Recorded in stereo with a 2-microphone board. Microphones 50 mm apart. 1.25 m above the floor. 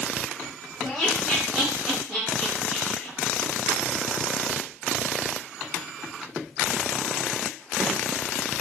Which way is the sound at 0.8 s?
15° right (ahead or behind).